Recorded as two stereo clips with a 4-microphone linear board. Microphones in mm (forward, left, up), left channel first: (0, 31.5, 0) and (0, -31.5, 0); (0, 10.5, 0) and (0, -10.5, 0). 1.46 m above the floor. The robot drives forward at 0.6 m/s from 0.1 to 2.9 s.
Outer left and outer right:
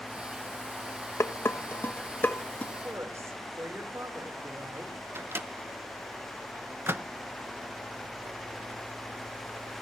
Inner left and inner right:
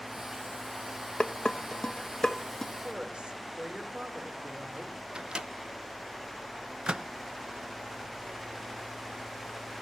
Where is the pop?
I don't hear a pop.